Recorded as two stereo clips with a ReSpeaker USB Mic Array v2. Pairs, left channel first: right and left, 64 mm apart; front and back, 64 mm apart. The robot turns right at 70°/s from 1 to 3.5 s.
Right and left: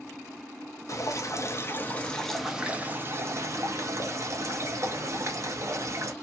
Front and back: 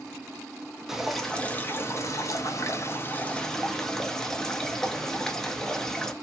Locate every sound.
0.9 s dripping: 95° right, 0.6 m; by 6.1 s 80° left, 0.6 m